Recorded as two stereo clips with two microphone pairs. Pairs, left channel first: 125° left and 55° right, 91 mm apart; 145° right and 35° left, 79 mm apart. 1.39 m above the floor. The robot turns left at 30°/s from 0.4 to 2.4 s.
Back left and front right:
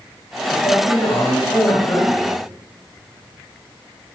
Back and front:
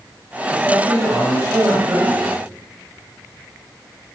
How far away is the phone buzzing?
I don't hear a phone buzzing.